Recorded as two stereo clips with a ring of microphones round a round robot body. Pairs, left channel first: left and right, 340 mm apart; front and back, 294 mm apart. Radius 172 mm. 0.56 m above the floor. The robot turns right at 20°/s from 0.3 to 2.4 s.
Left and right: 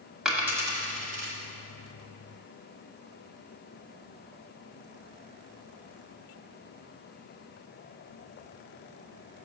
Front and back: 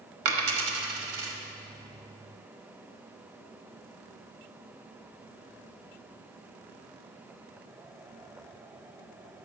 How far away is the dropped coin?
About 1.1 m.